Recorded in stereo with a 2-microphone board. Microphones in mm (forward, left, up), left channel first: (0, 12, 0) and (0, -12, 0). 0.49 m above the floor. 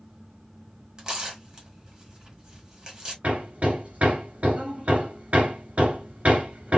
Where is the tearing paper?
30° right (ahead or behind), 2 m.